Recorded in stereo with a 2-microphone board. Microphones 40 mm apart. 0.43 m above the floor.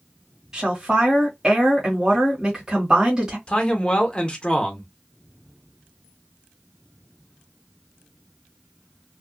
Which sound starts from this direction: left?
A man speaking, at 3.5 s.